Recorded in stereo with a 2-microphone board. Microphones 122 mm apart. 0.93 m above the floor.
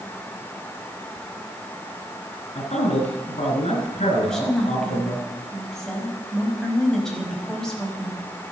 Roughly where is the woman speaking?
Centre.